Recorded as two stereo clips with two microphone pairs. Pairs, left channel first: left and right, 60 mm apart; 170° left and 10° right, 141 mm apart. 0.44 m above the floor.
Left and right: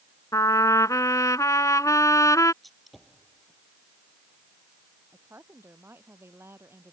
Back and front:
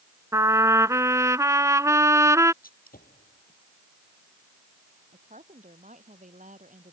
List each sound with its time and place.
0.3 s a trumpet: 60° left
2.6 s a gunshot: 175° left
5.1 s a woman speaking: 45° right